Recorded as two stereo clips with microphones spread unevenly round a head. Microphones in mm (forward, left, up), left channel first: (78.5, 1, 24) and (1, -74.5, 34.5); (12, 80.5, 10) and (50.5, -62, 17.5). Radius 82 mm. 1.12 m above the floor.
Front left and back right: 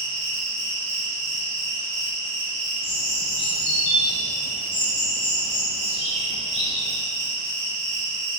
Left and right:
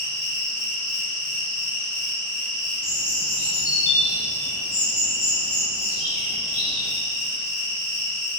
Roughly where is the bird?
Left.